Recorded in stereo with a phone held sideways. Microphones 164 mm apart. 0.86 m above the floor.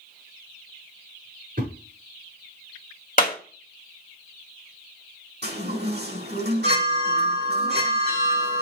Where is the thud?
60° right (ahead or behind), 5.5 m.